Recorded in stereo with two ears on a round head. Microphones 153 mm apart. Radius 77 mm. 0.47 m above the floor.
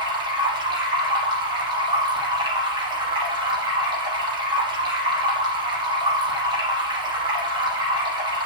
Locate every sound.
0.0 s running water: 25° right (ahead or behind), 5.5 m